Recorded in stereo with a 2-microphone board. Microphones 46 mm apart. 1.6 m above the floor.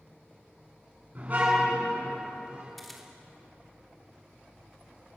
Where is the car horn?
40° right (ahead or behind), 7.5 m; by 2.7 s 30° right (ahead or behind), 9.5 m.